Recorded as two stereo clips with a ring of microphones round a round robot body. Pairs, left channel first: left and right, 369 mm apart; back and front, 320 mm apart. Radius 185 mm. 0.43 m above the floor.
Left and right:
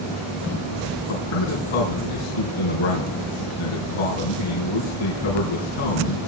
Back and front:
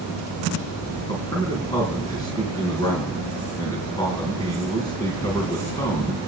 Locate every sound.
1.1 s a man speaking: 100° left, 3.5 m